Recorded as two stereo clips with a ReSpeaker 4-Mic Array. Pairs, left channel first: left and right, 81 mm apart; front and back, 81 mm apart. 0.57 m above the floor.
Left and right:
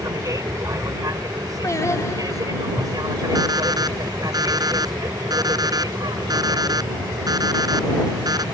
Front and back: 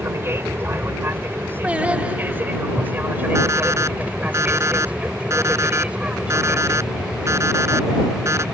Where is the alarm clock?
125° right.